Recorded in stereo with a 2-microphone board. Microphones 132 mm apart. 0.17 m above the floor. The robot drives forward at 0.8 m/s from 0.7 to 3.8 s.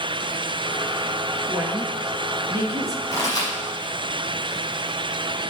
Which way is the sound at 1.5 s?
15° right (ahead or behind).